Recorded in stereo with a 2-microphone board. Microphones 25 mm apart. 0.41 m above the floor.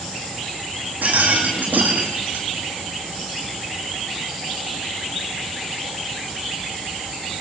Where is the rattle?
90° right, 6 m.